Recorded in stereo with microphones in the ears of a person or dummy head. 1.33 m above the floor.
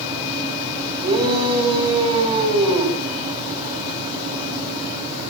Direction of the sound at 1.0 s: 25° right (ahead or behind).